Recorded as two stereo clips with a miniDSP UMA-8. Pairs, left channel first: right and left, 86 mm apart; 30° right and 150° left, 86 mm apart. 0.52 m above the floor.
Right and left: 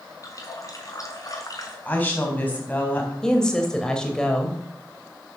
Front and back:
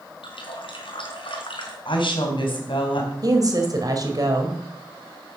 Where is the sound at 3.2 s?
170° right, 3 m.